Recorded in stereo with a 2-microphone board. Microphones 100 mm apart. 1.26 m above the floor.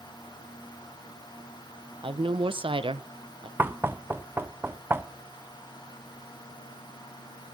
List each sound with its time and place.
2.0 s a woman speaking: 65° right (ahead or behind), 1.0 m
3.6 s knocking: 20° right (ahead or behind), 0.5 m